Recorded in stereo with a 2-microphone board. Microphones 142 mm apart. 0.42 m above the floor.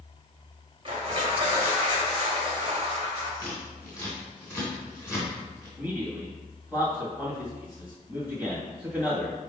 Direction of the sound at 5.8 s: 10° right (ahead or behind).